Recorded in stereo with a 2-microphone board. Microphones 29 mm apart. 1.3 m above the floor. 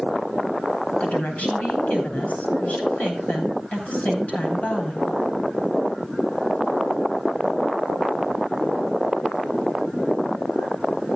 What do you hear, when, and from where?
1.0 s a woman speaking: 60° left (ahead or behind), 7.5 m